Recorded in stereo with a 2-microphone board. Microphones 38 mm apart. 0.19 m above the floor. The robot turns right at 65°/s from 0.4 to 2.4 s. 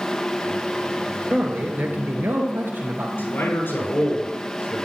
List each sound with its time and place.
1.3 s a man speaking: 145° right, 3.5 m; by 3.1 s 75° right, 3.5 m
3.2 s a man speaking: 75° left (ahead or behind), 6.5 m